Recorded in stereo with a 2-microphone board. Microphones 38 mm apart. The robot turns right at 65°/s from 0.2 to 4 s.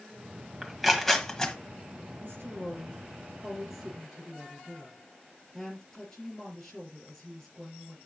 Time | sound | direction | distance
0.6 | tearing paper | 10° right (ahead or behind) | 1.4 m
2.2 | a woman speaking | 105° right | 4.5 m